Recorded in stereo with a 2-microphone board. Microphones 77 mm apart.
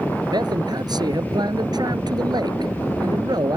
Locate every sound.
0.2 s a man speaking: 65° right (ahead or behind)